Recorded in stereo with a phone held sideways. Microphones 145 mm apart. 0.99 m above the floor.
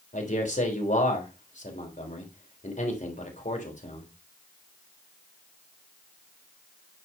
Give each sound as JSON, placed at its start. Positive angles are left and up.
{"t": 0.1, "sound": "a man speaking", "side_deg": 60, "distance_m": 3.0}